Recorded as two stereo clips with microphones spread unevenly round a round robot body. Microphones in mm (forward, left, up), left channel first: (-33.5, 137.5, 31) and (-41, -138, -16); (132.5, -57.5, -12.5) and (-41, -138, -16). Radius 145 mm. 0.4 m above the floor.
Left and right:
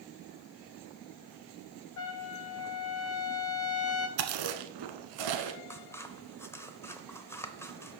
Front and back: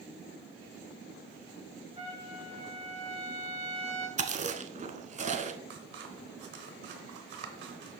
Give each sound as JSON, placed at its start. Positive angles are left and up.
{"t": 2.0, "sound": "a trumpet", "azimuth_deg": 130, "distance_m": 0.8}
{"t": 4.2, "sound": "chewing", "azimuth_deg": -100, "distance_m": 0.9}
{"t": 5.7, "sound": "scissors", "azimuth_deg": 175, "distance_m": 0.7}